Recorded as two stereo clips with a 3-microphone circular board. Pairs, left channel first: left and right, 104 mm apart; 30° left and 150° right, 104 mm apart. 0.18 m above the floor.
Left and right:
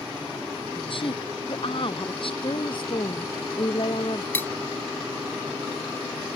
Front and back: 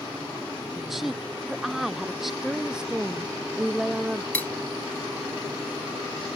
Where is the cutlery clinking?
65° left.